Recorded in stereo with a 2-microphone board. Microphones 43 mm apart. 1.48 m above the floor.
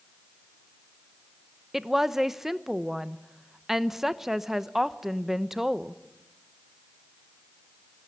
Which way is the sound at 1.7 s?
5° right (ahead or behind).